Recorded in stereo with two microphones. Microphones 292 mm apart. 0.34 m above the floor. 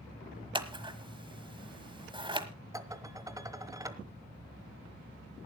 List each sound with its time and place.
0.6 s scissors: 15° right (ahead or behind), 1.2 m
2.7 s dishes clattering: 10° right (ahead or behind), 1.1 m